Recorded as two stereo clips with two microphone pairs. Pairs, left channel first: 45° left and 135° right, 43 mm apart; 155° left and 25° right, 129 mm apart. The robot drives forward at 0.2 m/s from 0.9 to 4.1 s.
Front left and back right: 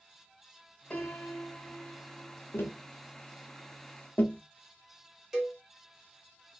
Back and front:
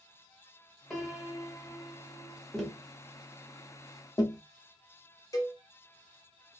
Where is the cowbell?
150° left, 0.7 m.